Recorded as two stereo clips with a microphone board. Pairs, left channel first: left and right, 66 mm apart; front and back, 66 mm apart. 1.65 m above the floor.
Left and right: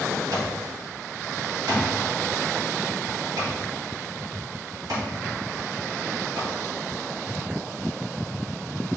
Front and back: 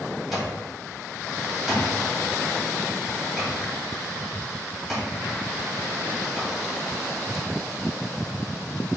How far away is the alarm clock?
About 1.8 m.